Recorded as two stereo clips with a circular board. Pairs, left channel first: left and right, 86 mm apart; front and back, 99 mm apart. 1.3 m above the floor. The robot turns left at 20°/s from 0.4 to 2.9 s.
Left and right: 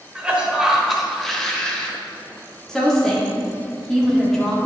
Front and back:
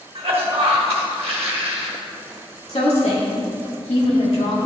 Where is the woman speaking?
10° left, 2.5 m; by 4.6 s 5° left, 2.5 m.